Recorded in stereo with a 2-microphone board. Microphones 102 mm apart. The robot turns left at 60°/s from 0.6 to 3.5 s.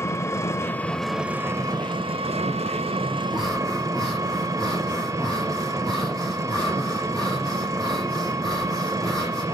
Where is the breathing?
10° right (ahead or behind), 8.5 m; by 9.4 s 5° left (ahead or behind), 8.5 m.